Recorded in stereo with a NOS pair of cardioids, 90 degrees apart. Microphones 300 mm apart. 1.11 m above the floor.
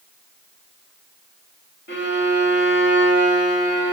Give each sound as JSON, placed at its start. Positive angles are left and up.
{"t": 1.9, "sound": "a violin", "azimuth_deg": 40, "distance_m": 2.0}